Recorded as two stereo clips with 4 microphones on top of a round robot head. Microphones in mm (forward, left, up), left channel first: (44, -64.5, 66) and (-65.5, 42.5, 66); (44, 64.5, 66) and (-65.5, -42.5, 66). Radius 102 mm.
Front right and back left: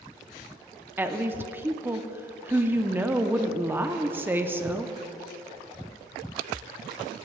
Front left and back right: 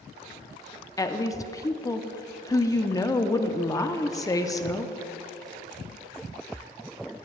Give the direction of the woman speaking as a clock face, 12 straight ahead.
9 o'clock.